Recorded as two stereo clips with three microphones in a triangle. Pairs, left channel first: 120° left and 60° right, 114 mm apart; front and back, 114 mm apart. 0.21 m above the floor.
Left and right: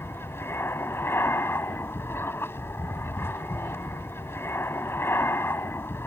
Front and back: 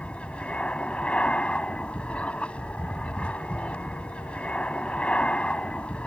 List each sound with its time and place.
0.0 s an aircraft: 70° left